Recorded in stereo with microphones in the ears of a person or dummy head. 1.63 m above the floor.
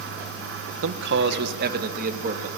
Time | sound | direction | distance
0.8 | a man speaking | 75° right (ahead or behind) | 1.3 m